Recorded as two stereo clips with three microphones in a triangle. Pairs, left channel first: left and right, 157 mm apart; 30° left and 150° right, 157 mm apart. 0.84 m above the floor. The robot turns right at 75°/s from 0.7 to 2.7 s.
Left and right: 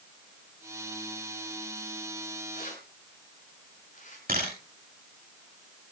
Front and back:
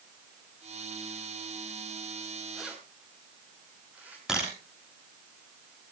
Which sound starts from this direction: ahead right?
A camera shutter, at 4.3 s.